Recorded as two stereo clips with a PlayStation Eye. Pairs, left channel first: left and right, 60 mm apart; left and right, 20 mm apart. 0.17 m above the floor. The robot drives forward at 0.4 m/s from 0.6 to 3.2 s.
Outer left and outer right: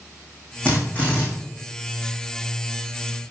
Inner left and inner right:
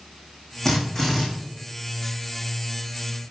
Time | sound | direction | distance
0.7 | a drill | 25° left (ahead or behind) | 7.5 m